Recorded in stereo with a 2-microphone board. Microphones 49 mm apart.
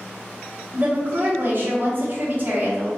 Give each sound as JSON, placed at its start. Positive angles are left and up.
{"t": 0.7, "sound": "a woman speaking", "side_deg": -40, "distance_m": 1.0}